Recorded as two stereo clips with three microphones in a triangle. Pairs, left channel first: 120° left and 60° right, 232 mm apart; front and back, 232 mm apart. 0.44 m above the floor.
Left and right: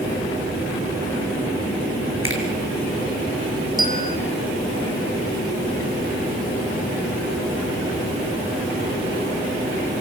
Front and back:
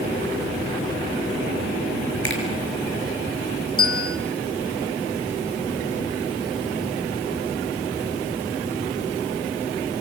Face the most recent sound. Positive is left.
turn(degrees=-10)